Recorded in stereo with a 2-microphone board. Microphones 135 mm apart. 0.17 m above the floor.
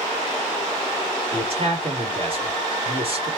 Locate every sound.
1.3 s a man speaking: 45° right (ahead or behind), 2 m